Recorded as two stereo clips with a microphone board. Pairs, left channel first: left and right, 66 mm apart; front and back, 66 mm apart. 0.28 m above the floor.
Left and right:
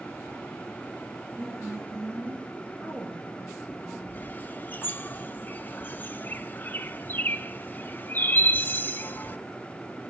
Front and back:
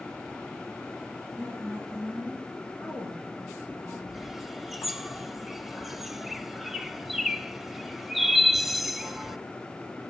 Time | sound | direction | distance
1.4 | a woman speaking | 145° right | 8.5 m
4.1 | a bird | 95° left | 0.5 m